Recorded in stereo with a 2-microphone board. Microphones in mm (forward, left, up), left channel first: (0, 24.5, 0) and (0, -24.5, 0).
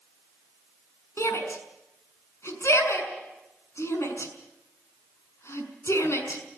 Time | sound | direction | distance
1.2 | a shout | 65° left (ahead or behind) | 6 m